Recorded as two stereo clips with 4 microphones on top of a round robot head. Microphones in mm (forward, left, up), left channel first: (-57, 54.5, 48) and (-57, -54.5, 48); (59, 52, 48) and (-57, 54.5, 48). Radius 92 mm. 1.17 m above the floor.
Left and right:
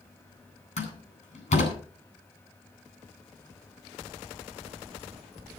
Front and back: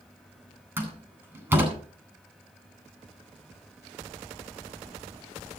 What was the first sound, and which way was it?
A door slam, 105° left.